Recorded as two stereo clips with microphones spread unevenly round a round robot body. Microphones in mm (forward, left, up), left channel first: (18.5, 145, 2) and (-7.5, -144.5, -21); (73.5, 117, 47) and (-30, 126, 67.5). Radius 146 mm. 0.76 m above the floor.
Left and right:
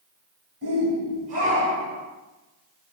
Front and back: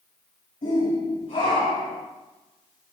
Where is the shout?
40° right, 4.5 m; by 2.0 s 20° right, 4 m.